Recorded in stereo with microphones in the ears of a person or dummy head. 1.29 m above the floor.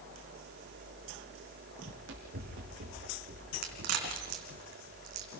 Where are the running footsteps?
65° right (ahead or behind), 3.5 m; by 4.6 s 45° right (ahead or behind), 2.5 m.